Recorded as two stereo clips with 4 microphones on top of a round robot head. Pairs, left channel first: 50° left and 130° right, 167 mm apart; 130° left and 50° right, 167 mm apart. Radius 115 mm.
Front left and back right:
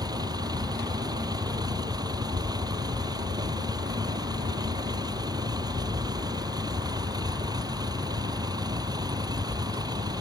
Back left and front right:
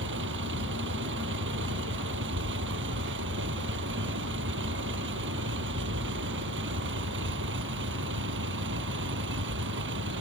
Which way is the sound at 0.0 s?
60° right.